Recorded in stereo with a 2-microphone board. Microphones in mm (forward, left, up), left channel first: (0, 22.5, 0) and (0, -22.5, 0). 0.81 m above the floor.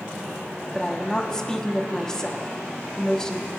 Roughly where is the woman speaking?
Centre.